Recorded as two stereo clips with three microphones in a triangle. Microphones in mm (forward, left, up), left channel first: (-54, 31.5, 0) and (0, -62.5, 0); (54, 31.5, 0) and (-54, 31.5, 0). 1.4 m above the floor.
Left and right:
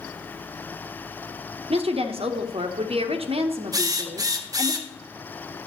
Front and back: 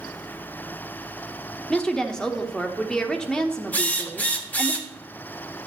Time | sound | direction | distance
1.7 | a woman speaking | 85° right | 1.0 m
3.7 | a drill | 65° right | 0.9 m